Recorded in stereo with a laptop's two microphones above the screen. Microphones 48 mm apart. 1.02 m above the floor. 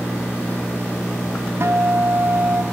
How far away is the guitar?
About 3.5 m.